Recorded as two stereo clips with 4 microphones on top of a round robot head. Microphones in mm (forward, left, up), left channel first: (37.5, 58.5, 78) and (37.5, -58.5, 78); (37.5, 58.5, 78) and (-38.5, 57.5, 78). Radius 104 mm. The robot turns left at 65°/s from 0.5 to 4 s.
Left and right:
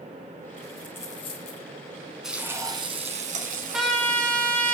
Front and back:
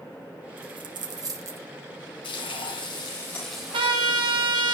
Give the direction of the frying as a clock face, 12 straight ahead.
12 o'clock.